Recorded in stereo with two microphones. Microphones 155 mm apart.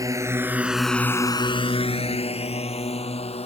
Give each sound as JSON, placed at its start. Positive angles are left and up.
{"t": 0.0, "sound": "a drone", "side_deg": -20}